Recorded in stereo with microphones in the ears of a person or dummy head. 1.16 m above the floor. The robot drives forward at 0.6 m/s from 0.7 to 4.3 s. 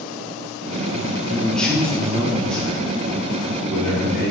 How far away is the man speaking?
About 0.5 m.